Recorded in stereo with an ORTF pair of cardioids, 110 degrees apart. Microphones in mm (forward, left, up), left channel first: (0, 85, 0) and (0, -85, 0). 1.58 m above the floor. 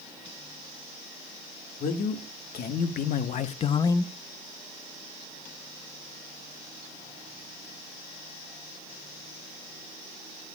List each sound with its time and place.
1.8 s a man speaking: 70° left, 2.5 m; by 4.1 s 5° left, 0.5 m